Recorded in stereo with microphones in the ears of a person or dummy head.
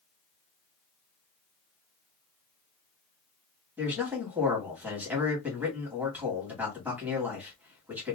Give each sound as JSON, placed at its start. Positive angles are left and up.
{"t": 3.8, "sound": "a man speaking", "side_deg": -10, "distance_m": 1.5}